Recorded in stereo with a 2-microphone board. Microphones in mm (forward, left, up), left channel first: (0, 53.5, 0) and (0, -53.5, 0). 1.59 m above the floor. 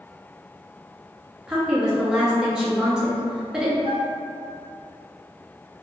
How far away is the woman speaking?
About 0.9 m.